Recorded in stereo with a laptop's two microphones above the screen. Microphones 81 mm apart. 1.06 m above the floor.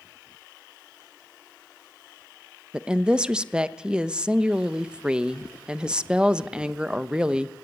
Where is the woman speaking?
15° right (ahead or behind), 1.0 m.